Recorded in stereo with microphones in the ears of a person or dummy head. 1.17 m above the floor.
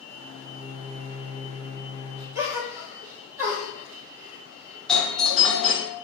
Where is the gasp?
20° right (ahead or behind), 1.2 m.